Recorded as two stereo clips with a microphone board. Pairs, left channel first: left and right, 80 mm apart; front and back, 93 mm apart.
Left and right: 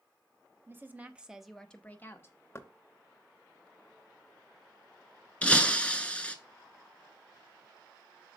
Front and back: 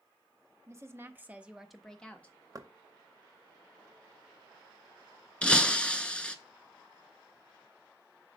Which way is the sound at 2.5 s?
140° left.